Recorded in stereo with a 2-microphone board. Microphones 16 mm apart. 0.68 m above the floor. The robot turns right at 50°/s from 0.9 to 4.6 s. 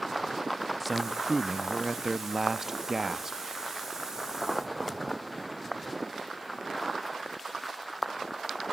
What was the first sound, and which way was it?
A man speaking, centre (ahead or behind).